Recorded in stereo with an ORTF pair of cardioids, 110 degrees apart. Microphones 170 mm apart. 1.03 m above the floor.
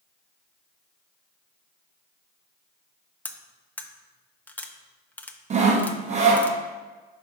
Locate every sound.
3.2 s cutlery clinking: 10° left, 0.6 m
5.5 s sawing: 40° right, 0.8 m